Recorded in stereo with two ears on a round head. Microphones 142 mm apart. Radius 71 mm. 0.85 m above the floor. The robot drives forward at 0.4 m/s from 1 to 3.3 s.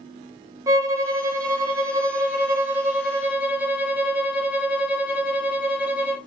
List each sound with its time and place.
0.7 s a violin: 20° right (ahead or behind), 0.5 m; by 6.2 s 10° right (ahead or behind), 0.9 m